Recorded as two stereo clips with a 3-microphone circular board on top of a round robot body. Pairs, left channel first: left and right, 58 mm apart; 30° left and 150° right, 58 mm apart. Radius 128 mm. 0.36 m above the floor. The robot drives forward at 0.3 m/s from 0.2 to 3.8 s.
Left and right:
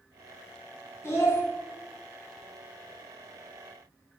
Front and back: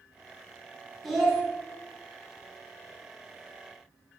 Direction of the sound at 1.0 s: 120° left.